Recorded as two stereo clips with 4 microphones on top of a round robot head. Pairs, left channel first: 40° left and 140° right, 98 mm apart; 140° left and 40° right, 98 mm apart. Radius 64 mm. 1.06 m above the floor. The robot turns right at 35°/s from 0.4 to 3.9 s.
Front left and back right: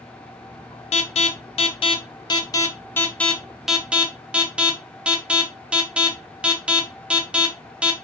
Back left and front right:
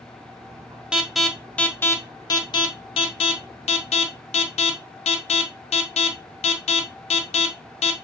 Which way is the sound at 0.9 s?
40° left.